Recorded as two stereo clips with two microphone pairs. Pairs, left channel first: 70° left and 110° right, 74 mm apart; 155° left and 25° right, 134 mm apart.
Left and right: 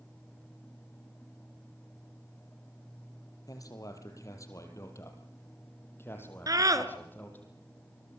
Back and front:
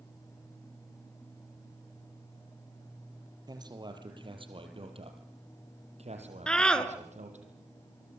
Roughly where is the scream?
Behind right.